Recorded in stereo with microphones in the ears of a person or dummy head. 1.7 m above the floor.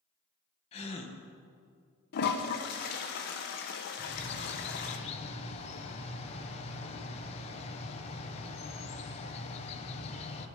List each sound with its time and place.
0.7 s a gasp: 35° left (ahead or behind), 1.8 m
2.1 s a toilet flushing: 60° left (ahead or behind), 1.3 m
4.0 s a bird: 35° left (ahead or behind), 1.4 m